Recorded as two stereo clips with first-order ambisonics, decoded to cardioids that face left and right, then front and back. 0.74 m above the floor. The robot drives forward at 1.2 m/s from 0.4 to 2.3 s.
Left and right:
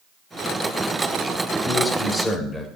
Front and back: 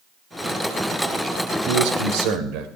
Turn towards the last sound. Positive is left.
turn(degrees=170)